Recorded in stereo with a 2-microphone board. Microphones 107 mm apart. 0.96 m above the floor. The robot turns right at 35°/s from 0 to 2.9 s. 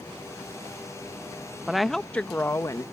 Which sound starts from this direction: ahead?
A woman speaking, at 1.7 s.